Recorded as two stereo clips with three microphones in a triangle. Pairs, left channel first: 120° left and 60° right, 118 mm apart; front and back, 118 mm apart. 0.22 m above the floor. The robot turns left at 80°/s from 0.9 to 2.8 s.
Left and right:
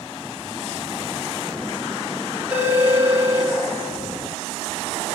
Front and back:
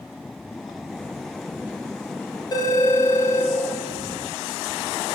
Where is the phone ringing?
5° left, 0.9 m; by 3.5 s 20° right, 0.9 m.